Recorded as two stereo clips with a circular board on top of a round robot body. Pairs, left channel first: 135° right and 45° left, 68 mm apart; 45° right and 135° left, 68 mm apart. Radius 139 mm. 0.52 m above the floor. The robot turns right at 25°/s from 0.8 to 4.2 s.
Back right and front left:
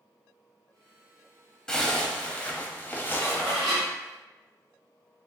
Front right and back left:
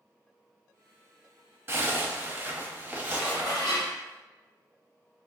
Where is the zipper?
160° left, 1.0 m; by 3.6 s 155° right, 1.0 m.